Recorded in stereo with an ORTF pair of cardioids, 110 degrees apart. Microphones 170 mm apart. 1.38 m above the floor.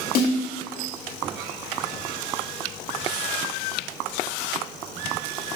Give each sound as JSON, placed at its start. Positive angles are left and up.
{"t": 0.1, "sound": "a snare drum", "azimuth_deg": 60, "distance_m": 2.0}